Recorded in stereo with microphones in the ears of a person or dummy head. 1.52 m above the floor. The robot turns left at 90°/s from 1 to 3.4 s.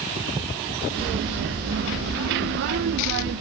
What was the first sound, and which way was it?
Only background noise.